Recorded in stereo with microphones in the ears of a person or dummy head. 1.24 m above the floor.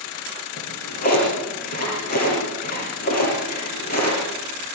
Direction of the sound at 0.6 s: 55° left (ahead or behind).